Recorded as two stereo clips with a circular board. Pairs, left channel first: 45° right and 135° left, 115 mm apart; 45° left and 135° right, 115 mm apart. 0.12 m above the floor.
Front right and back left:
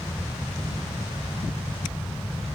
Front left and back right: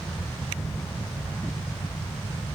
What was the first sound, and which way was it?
Only background noise.